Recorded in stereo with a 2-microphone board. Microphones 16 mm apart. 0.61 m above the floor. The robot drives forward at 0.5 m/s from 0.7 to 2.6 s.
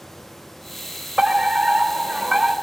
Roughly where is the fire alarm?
Right.